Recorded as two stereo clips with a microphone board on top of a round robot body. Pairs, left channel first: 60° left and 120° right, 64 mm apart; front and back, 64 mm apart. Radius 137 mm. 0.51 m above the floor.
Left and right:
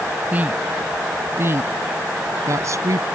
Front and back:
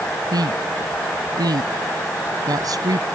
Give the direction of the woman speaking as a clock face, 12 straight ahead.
6 o'clock.